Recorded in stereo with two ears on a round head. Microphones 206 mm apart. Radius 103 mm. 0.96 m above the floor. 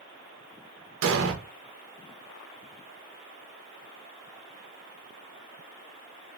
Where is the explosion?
65° right (ahead or behind), 0.7 m.